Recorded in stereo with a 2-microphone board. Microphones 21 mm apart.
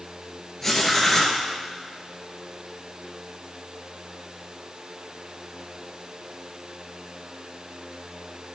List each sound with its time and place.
0.6 s writing: 15° left (ahead or behind), 1.8 m